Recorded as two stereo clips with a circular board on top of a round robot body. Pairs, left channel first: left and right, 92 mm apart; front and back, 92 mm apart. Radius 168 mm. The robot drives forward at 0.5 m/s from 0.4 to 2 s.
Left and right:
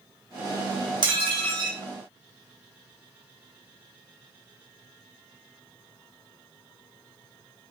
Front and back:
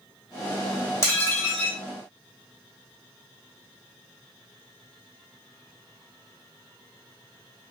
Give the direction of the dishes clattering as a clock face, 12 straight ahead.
2 o'clock.